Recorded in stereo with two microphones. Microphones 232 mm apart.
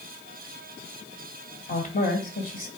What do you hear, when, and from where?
1.7 s a woman speaking: 35° left (ahead or behind), 1.5 m